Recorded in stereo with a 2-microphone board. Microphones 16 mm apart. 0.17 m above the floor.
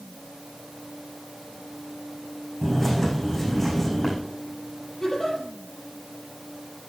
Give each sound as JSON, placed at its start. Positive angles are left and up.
{"t": 2.6, "sound": "a bird", "side_deg": 10, "distance_m": 5.0}
{"t": 5.0, "sound": "a giggle", "side_deg": 35, "distance_m": 5.0}